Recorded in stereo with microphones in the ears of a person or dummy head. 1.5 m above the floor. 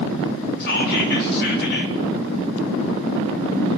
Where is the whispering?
55° left (ahead or behind), 4 m.